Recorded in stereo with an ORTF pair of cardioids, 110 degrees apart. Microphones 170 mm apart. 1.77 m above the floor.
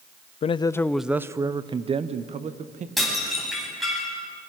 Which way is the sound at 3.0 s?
Straight ahead.